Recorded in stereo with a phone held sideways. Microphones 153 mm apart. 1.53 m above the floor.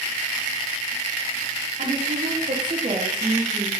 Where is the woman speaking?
60° right (ahead or behind), 1.2 m; by 3.7 s 5° right (ahead or behind), 1.1 m.